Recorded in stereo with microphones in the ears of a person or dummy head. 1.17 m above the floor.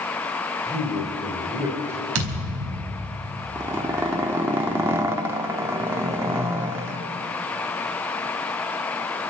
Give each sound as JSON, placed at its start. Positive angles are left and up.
{"t": 0.7, "sound": "a man speaking", "side_deg": -15, "distance_m": 3.5}
{"t": 2.1, "sound": "a thud", "side_deg": -85, "distance_m": 4.5}
{"t": 3.5, "sound": "a zipper", "side_deg": -15, "distance_m": 1.3}